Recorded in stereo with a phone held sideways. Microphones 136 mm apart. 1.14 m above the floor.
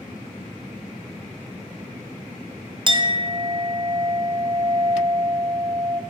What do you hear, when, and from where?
2.9 s a clink: 35° right (ahead or behind), 0.6 m